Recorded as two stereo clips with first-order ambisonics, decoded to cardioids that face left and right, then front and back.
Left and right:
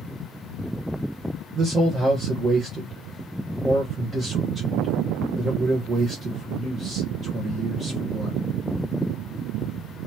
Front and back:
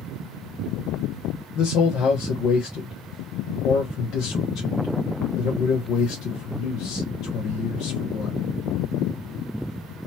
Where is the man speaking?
25° right, 1.1 m.